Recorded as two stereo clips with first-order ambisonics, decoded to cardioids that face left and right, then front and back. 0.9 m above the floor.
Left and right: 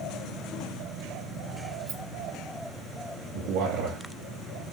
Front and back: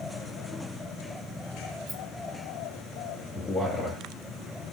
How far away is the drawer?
No drawer in this recording.